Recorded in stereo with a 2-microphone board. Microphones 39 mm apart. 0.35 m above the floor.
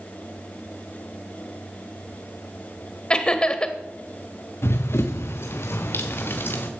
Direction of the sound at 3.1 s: 20° left (ahead or behind).